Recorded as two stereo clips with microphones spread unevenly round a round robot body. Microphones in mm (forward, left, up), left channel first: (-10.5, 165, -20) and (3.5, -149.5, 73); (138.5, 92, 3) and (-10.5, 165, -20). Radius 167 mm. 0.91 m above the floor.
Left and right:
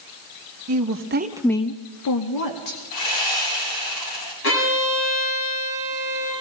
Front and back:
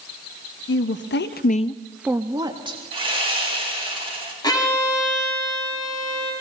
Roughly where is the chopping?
No chopping in this recording.